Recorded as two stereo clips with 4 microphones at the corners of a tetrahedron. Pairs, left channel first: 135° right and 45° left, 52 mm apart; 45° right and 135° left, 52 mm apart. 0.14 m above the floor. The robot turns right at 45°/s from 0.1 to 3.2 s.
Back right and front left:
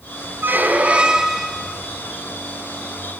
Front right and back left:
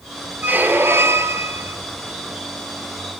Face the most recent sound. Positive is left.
turn(degrees=-150)